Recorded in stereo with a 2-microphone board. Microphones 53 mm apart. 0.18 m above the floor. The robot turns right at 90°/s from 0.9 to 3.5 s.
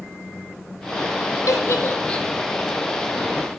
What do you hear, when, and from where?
1.5 s a giggle: 75° left (ahead or behind), 3 m; by 2.3 s 5° left (ahead or behind), 3 m